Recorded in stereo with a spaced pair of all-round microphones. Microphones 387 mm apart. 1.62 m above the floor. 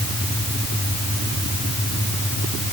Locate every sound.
Only background noise.